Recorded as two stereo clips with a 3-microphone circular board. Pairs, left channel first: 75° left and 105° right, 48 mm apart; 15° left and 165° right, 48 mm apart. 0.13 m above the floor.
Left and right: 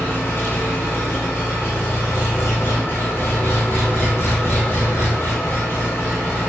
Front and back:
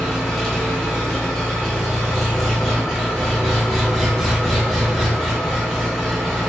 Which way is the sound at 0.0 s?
100° left.